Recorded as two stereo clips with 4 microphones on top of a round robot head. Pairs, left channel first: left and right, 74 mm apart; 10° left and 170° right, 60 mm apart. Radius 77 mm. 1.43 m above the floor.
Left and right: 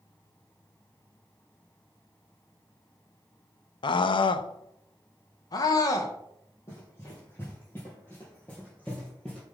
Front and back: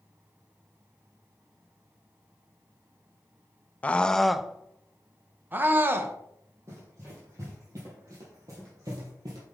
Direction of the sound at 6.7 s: 150° left.